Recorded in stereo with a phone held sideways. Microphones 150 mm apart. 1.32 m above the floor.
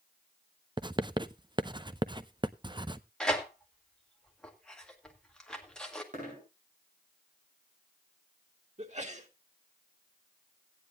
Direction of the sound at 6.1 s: 55° right (ahead or behind).